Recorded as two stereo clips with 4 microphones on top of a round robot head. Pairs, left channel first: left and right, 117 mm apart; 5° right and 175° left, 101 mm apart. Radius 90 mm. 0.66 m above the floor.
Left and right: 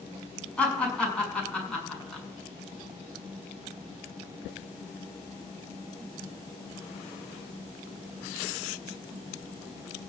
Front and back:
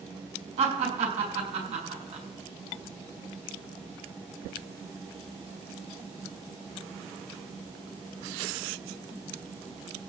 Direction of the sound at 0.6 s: 170° left.